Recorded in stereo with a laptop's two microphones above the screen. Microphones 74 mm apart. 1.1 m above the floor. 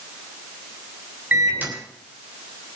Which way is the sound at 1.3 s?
25° right (ahead or behind).